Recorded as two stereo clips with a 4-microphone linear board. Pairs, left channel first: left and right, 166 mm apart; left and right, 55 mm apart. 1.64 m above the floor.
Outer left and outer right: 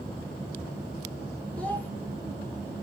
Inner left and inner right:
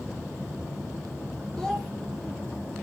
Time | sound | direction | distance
1.6 | a child speaking | 10° left (ahead or behind) | 1.1 m